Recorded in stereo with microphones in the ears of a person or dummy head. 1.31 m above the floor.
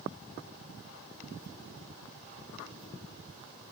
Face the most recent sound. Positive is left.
No sound to turn to.